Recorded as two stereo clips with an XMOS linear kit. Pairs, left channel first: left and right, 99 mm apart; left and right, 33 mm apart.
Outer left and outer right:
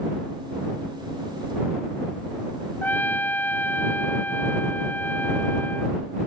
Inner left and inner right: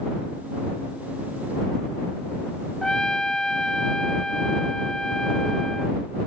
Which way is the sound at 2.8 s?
20° left (ahead or behind).